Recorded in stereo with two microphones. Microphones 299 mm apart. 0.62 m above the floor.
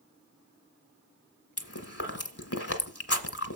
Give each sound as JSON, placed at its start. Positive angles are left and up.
{"t": 1.6, "sound": "chewing", "side_deg": 50, "distance_m": 1.1}